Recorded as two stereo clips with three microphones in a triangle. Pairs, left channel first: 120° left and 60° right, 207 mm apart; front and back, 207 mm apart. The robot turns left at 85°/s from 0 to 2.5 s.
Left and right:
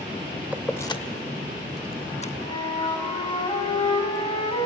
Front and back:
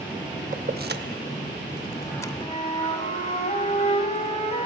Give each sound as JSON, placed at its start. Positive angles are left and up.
{"t": 0.5, "sound": "keys jangling", "azimuth_deg": -140, "distance_m": 0.7}
{"t": 2.4, "sound": "a flute", "azimuth_deg": 65, "distance_m": 1.9}